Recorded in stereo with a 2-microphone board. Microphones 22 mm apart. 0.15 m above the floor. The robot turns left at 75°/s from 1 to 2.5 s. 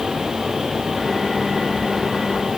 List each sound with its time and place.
Only background noise.